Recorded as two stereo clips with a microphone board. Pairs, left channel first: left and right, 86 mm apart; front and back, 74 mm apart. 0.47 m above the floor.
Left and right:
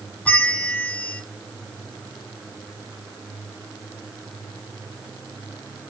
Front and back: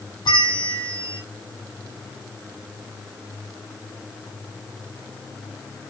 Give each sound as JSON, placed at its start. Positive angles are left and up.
{"t": 0.2, "sound": "a bell", "azimuth_deg": 15, "distance_m": 0.7}